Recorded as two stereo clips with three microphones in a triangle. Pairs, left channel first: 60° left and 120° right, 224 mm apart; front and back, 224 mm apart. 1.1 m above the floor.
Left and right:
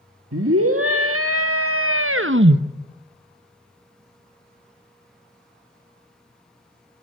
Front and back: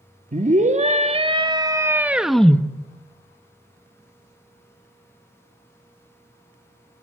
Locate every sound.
0.3 s a scream: 125° right, 1.8 m; by 2.6 s 80° right, 1.0 m